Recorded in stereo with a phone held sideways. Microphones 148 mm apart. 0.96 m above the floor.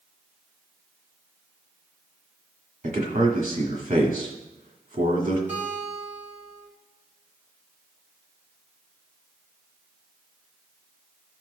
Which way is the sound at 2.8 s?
60° right (ahead or behind).